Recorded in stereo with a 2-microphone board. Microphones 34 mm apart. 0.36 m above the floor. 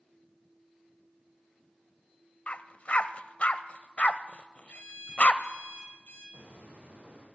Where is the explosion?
85° right, 5.5 m.